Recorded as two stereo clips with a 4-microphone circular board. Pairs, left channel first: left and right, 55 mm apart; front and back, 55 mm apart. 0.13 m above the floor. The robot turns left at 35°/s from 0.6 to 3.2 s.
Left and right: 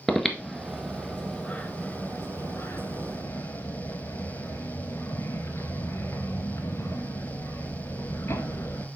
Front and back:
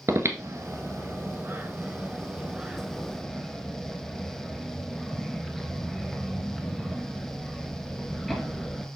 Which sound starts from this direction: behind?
Breathing, at 0.1 s.